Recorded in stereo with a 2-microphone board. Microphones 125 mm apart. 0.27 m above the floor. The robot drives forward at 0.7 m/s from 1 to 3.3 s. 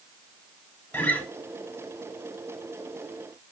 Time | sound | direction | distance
0.9 | a guitar | 15° left (ahead or behind) | 0.8 m